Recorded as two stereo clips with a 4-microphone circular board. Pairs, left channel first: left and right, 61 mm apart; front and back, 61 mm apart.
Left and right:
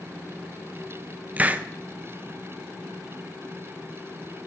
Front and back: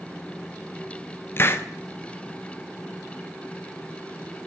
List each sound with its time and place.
1.4 s a hiss: 35° right, 0.8 m